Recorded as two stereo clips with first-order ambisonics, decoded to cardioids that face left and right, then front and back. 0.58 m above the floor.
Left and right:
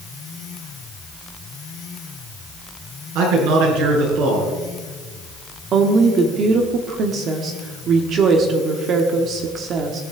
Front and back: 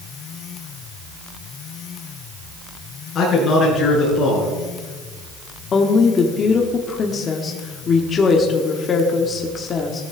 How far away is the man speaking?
About 6.5 m.